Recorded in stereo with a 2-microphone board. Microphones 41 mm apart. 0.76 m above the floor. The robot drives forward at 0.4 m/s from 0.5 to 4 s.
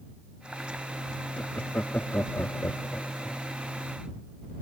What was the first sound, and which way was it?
Laughter, 50° left (ahead or behind).